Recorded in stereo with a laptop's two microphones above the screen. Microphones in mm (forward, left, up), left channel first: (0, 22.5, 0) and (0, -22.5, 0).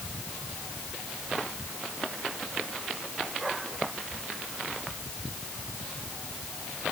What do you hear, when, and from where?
Only background noise.